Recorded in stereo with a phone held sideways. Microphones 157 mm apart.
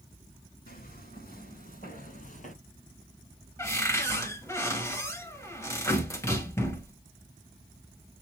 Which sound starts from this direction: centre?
A cupboard door, at 3.6 s.